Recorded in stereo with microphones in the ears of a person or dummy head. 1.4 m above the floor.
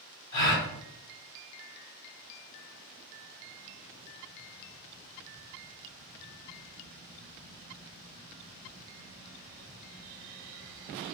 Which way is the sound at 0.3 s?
25° left (ahead or behind).